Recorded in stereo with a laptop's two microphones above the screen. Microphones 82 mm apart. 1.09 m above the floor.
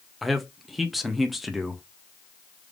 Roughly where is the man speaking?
Centre.